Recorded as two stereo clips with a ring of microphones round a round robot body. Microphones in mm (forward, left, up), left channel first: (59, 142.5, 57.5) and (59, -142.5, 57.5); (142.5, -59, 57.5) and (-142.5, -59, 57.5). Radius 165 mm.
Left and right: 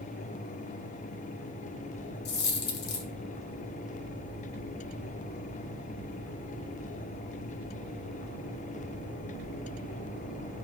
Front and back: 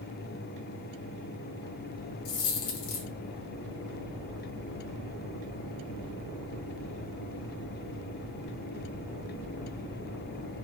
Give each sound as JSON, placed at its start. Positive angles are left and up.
{"t": 2.2, "sound": "a dropped coin", "azimuth_deg": 35, "distance_m": 0.6}